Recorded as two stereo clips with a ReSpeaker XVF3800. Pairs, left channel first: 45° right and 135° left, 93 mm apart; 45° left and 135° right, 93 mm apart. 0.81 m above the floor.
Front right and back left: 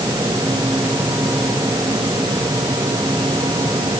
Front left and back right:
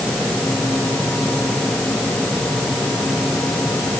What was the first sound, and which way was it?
Only background noise.